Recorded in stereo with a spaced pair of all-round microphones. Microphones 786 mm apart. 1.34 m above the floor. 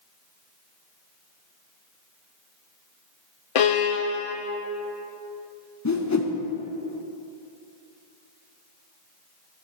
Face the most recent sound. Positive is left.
turn(degrees=25)  # may be behind; listen again after turning